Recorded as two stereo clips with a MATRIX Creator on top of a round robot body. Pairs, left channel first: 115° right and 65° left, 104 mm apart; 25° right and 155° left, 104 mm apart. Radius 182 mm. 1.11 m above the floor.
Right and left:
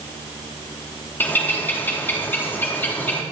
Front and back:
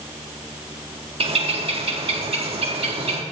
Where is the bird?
175° left, 2 m.